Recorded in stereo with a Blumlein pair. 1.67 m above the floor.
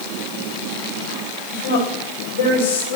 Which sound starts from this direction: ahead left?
A woman speaking, at 1.5 s.